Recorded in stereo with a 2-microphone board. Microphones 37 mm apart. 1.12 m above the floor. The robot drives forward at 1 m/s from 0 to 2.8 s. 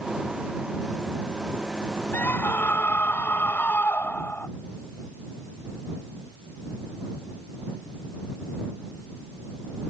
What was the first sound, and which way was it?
A scream, 65° left (ahead or behind).